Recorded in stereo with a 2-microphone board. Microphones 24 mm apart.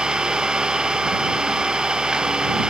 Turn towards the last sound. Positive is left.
turn(degrees=-35)  # may be behind; listen again after turning